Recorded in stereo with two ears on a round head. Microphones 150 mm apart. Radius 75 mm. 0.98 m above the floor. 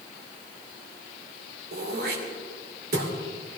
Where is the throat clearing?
60° right (ahead or behind), 2.5 m.